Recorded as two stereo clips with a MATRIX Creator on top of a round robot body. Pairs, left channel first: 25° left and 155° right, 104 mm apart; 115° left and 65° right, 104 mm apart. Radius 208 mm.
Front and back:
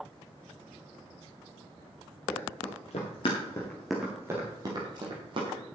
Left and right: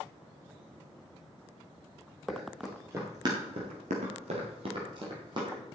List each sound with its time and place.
2.3 s running footsteps: 15° left, 2.5 m; by 5.6 s 115° right, 3 m